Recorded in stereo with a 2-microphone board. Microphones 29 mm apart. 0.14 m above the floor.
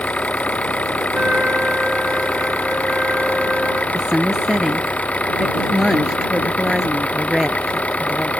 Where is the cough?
No cough in this recording.